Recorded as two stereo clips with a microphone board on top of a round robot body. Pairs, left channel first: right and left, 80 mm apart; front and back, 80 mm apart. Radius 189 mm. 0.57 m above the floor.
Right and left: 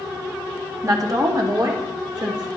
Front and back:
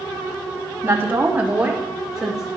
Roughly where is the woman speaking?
Behind left.